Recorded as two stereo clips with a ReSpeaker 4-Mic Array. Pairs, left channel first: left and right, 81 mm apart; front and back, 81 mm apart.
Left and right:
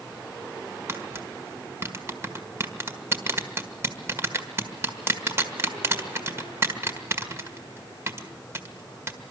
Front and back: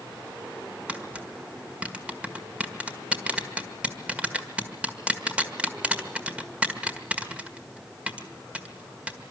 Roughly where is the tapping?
Behind right.